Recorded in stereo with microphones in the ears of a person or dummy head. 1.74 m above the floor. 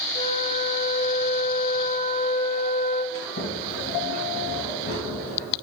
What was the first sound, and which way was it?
A flute, 30° left (ahead or behind).